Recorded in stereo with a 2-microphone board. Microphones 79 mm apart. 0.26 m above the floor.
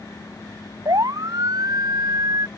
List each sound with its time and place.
0.8 s a siren: 55° right (ahead or behind); by 2.5 s 50° right (ahead or behind)